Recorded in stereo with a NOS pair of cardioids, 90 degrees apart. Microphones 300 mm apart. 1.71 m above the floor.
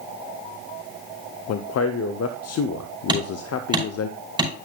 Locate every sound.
1.5 s a man speaking: 55° left, 0.7 m
3.1 s hammering: 15° right, 5 m